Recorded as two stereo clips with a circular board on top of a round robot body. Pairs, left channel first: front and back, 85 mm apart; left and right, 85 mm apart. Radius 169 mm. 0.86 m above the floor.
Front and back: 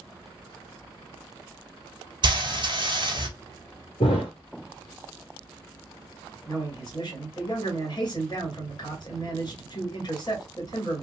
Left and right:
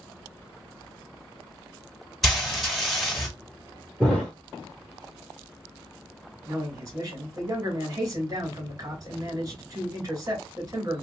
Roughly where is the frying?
Behind.